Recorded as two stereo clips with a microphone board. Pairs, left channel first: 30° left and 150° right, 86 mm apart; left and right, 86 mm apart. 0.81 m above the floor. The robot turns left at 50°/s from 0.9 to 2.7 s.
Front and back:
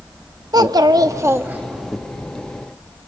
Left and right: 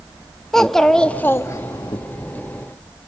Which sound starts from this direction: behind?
A child speaking, at 0.5 s.